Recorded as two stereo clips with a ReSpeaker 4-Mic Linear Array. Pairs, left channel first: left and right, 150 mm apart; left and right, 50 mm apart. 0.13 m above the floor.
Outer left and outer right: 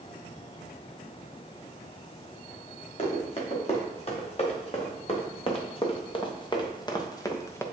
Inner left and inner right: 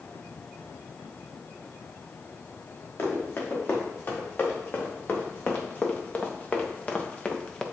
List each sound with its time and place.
3.0 s running footsteps: 45° left (ahead or behind), 3.5 m; by 7.7 s 15° left (ahead or behind), 1.3 m